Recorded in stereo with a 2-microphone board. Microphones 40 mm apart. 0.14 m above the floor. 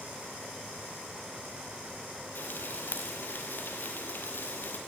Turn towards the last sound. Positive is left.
turn(degrees=50)  # may be behind; listen again after turning